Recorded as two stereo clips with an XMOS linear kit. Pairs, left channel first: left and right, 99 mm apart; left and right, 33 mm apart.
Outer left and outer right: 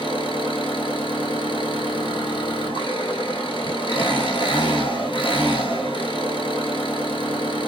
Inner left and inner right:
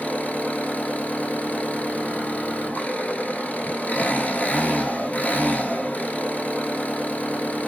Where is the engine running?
55° left (ahead or behind), 0.9 m.